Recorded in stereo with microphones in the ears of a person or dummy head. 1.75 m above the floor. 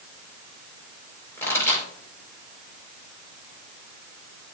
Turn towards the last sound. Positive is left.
turn(degrees=20)  # may be behind; listen again after turning